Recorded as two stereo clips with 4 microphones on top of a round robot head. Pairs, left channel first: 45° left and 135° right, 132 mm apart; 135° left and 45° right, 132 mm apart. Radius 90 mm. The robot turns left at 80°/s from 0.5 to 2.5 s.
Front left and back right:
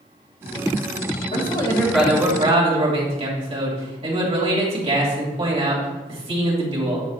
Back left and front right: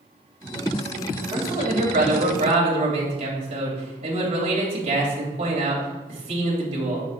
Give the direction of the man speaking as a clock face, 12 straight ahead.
12 o'clock.